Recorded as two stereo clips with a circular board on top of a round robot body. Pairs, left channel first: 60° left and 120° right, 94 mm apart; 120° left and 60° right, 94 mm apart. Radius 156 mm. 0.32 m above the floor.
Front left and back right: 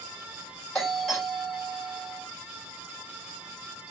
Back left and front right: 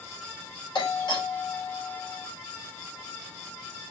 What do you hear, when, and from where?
0.8 s a doorbell: 145° left, 2.5 m